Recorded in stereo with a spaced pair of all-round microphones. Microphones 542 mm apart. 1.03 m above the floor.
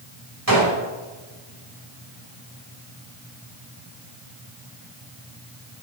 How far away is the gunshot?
About 5 m.